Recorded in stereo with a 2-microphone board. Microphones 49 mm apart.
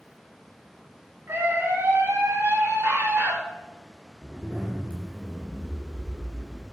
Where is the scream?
50° right (ahead or behind), 3.5 m; by 3.4 s 70° right (ahead or behind), 4 m.